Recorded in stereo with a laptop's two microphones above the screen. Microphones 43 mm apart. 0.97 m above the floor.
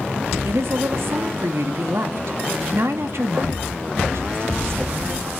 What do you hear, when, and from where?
0.5 s a woman speaking: 70° right (ahead or behind), 2 m